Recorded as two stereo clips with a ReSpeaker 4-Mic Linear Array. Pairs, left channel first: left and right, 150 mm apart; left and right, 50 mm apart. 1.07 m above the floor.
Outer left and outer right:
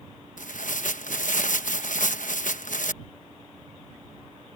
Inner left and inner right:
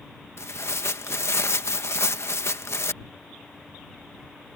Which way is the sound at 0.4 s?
65° left (ahead or behind).